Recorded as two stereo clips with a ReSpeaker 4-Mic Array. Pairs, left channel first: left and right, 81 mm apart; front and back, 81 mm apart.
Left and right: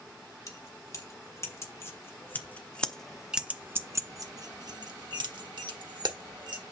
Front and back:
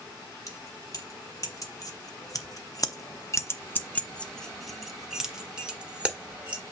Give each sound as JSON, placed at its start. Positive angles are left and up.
{"t": 0.5, "sound": "keys jangling", "azimuth_deg": 50, "distance_m": 1.8}